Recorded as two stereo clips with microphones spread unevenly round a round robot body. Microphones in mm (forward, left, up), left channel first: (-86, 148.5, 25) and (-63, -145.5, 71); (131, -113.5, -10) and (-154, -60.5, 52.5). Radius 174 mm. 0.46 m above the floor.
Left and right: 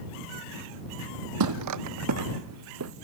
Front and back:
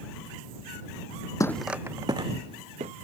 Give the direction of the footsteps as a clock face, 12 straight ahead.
3 o'clock.